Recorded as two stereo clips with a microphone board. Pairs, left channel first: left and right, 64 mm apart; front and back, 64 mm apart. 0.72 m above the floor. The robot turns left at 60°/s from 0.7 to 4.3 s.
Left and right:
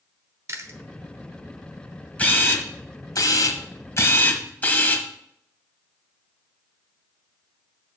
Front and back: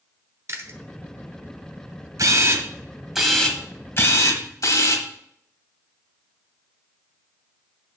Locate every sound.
0.5 s chewing: 130° right, 1.0 m; by 0.8 s 140° right, 1.0 m
2.2 s a camera shutter: 155° left, 1.2 m; by 5.1 s 30° left, 1.2 m